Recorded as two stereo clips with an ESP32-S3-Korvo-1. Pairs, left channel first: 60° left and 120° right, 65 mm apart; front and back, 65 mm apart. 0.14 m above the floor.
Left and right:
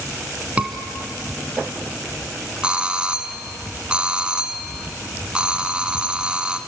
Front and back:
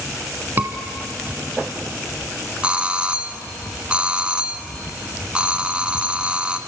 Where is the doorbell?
155° right, 1.4 m.